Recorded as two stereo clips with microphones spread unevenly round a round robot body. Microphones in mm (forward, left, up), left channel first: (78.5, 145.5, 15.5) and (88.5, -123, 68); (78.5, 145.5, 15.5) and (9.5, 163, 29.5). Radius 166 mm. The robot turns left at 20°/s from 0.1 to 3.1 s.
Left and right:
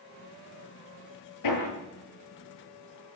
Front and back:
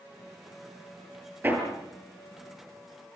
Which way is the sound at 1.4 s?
105° left.